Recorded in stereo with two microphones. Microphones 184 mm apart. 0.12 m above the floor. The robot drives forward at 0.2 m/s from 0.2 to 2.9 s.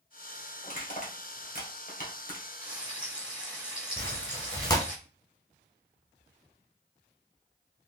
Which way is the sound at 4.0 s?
20° left (ahead or behind).